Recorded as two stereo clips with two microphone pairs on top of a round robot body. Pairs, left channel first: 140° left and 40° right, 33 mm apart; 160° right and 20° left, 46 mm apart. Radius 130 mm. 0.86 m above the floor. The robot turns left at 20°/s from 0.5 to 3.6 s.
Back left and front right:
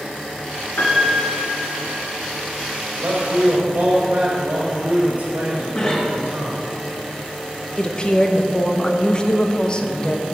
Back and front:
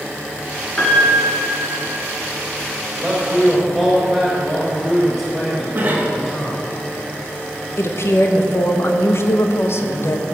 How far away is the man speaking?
About 4.5 m.